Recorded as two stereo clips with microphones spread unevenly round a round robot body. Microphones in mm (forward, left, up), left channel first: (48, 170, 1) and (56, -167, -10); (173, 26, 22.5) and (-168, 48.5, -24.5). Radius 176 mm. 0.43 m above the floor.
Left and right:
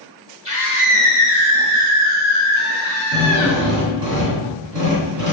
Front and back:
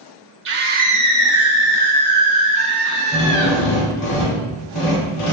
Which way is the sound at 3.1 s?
50° right.